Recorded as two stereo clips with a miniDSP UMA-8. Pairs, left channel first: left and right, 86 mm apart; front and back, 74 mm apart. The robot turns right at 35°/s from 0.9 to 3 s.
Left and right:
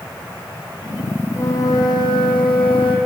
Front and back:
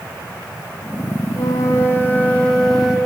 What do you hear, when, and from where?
1.3 s a flute: 35° left, 3.5 m; by 3.0 s 95° left, 3.5 m